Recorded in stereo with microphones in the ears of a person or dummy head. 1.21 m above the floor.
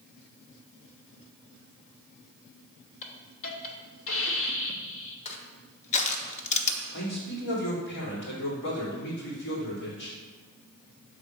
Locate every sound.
3.0 s a hiss: 65° left (ahead or behind), 1.1 m
5.2 s crushing: 35° left (ahead or behind), 0.9 m
6.9 s a man speaking: 65° left (ahead or behind), 2.5 m